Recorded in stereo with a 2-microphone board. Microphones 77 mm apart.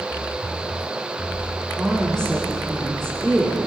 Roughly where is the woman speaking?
Centre.